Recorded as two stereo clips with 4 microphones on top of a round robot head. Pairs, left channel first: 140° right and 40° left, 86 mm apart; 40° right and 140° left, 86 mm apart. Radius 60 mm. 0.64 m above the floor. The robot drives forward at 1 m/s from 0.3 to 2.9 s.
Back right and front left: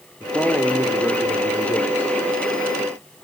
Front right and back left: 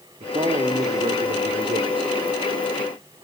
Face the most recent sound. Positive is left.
turn(degrees=160)